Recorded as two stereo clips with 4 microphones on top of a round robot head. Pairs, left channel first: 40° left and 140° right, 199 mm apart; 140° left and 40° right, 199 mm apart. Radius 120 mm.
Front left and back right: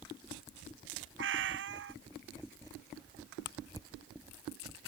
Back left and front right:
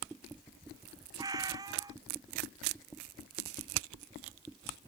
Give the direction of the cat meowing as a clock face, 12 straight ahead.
4 o'clock.